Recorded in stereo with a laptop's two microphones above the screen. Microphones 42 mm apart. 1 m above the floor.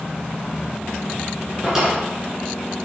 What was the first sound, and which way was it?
A drawer, 5° right (ahead or behind).